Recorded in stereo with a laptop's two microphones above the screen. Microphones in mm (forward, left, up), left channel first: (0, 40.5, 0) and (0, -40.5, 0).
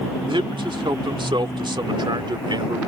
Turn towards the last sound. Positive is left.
turn(degrees=-70)  # may be behind; listen again after turning